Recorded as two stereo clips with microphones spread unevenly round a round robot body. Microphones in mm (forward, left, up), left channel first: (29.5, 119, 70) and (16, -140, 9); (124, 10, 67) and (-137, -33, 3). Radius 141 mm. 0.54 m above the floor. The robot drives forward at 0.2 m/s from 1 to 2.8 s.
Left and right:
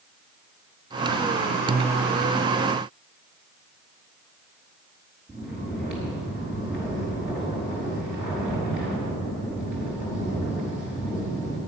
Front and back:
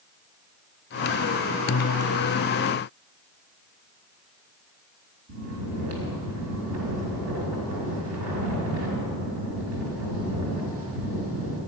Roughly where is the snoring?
Behind.